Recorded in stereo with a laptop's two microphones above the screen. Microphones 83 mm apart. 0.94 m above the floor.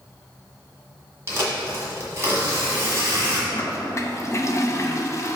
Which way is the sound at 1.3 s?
35° right (ahead or behind).